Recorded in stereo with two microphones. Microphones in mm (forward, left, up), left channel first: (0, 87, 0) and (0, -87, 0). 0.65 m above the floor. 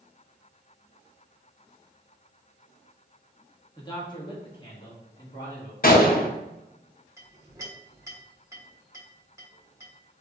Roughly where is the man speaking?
Left.